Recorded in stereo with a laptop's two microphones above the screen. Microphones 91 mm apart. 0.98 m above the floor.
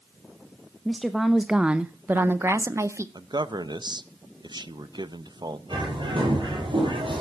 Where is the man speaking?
50° right (ahead or behind), 0.6 m.